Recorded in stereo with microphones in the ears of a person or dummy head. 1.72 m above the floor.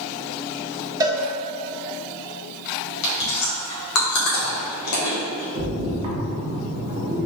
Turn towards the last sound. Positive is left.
turn(degrees=-25)  # may be behind; listen again after turning